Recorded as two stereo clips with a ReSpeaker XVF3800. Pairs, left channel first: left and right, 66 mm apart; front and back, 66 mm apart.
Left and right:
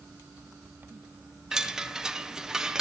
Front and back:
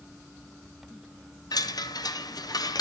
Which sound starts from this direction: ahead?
A chime, at 1.5 s.